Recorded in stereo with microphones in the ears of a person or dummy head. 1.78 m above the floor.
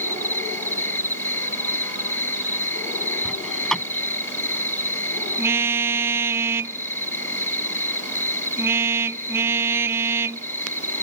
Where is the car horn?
10° right (ahead or behind).